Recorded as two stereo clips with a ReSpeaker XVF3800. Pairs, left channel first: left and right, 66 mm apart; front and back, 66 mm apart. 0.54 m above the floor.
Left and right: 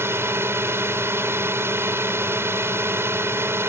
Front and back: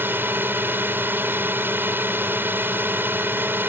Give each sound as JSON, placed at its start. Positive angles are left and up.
{"t": 0.0, "sound": "a drone", "azimuth_deg": -130}